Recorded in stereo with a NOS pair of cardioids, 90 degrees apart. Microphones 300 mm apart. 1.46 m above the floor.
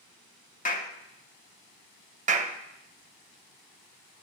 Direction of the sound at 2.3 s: 25° right.